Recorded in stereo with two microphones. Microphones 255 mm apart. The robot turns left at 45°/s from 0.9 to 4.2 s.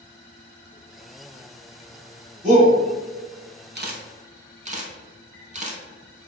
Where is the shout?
30° right (ahead or behind), 1.9 m; by 2.7 s 35° right (ahead or behind), 1.9 m.